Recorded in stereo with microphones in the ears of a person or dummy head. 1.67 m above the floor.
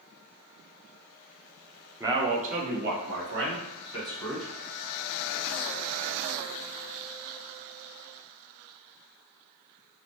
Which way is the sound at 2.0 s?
10° right (ahead or behind).